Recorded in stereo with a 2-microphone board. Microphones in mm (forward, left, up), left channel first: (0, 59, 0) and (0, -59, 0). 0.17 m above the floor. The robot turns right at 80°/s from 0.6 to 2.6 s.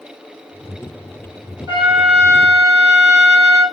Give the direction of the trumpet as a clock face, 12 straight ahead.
1 o'clock.